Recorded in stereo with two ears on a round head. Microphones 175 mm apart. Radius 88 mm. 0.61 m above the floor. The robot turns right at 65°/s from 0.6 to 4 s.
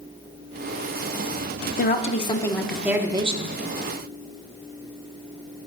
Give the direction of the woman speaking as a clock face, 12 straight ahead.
8 o'clock.